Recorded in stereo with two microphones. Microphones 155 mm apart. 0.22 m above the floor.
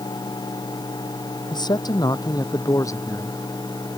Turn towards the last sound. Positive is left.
turn(degrees=15)  # may be behind; listen again after turning